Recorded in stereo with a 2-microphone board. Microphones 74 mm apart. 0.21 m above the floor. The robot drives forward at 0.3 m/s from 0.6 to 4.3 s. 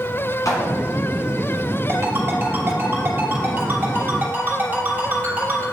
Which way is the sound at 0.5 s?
55° left (ahead or behind).